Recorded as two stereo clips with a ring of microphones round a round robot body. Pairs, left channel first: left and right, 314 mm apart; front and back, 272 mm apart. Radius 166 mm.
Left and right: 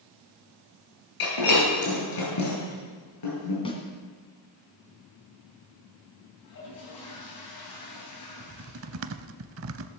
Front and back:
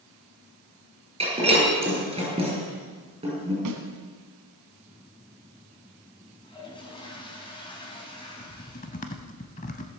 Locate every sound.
1.2 s breaking glass: 110° left, 7 m
3.6 s a snare drum: 165° left, 2 m
6.4 s a toilet flushing: 70° left, 4.5 m
8.4 s typing on a keyboard: 60° right, 0.5 m